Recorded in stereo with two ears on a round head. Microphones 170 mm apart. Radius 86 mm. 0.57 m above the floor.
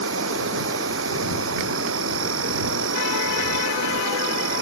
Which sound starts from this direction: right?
An insect, at 0.0 s.